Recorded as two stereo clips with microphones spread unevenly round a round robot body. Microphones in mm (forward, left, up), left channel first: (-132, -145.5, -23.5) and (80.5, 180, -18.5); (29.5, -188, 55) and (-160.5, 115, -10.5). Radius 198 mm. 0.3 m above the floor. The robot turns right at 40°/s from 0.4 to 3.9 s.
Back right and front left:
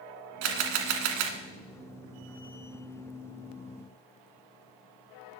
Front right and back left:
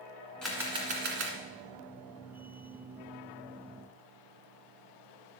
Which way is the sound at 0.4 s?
35° left.